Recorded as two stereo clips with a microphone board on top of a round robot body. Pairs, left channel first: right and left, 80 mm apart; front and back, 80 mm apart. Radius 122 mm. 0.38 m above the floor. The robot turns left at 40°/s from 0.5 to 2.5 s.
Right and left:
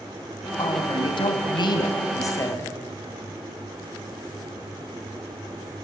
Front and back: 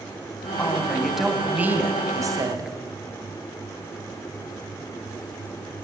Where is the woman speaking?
70° right, 3.5 m; by 2.7 s 145° right, 3.5 m.